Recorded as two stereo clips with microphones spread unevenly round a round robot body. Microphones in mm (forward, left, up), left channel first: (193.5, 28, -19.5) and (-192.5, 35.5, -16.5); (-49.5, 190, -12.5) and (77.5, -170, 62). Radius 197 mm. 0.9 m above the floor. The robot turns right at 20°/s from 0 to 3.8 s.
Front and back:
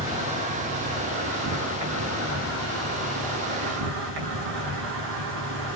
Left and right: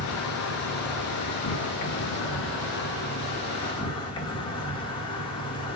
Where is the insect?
100° left, 1.7 m; by 5.8 s 175° left, 1.7 m.